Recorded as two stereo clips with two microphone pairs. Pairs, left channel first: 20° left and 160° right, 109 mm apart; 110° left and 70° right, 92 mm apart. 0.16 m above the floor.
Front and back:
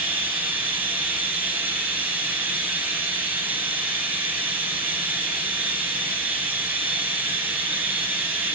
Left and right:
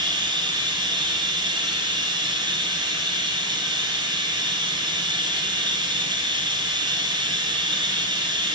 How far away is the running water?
About 1.9 m.